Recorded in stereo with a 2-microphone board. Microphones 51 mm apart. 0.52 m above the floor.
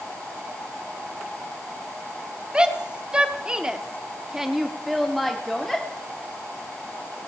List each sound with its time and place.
2.5 s a shout: 15° right (ahead or behind), 1.5 m; by 5.9 s 5° left (ahead or behind), 1.3 m